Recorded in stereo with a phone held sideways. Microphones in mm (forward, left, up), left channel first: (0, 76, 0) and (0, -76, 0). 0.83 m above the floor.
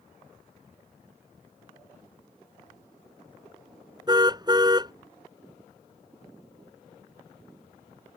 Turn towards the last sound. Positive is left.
turn(degrees=-25)  # may be behind; listen again after turning